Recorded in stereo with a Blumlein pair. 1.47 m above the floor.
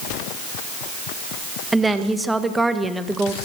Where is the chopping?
No chopping in this recording.